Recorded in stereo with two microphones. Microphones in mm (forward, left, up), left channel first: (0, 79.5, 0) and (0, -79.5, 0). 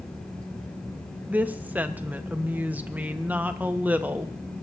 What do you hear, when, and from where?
1.3 s a woman speaking: 10° right (ahead or behind), 0.7 m